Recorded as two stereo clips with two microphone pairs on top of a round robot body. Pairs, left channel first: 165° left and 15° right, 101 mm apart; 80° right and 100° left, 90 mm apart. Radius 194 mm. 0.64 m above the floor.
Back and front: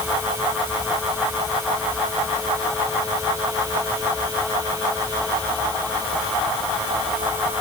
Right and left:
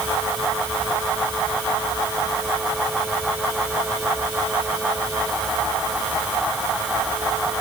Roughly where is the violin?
I don't hear a violin.